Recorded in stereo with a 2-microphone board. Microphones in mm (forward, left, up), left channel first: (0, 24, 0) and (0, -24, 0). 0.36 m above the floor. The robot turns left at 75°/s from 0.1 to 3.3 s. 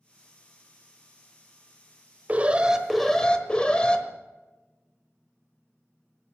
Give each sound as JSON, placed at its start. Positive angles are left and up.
{"t": 2.3, "sound": "an alarm", "azimuth_deg": -130, "distance_m": 1.1}